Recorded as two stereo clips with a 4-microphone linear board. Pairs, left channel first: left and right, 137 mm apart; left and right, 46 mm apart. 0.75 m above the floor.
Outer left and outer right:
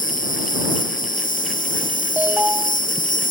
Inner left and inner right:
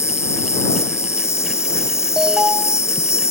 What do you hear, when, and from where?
0.0 s an insect: 70° left (ahead or behind)
2.2 s an alarm: 10° right (ahead or behind)